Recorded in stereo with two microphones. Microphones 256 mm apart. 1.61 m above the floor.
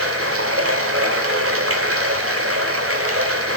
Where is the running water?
55° right (ahead or behind), 2.5 m.